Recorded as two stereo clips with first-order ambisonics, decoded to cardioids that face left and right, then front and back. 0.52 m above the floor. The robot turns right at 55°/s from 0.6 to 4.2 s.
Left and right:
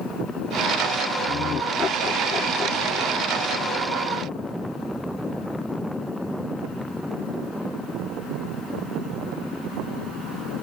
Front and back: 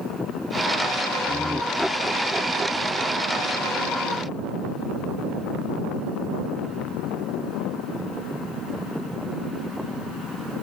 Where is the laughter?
60° left; by 3.4 s 175° left.